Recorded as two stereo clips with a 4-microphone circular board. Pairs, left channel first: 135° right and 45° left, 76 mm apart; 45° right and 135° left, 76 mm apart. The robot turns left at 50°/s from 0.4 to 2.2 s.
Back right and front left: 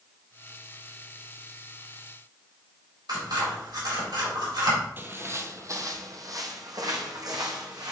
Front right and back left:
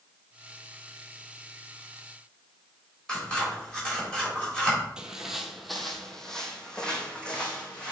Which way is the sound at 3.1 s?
30° left.